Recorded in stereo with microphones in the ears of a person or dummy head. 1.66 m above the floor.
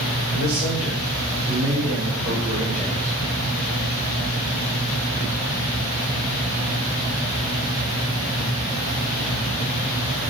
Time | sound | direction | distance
0.3 | a man speaking | 45° right (ahead or behind) | 4 m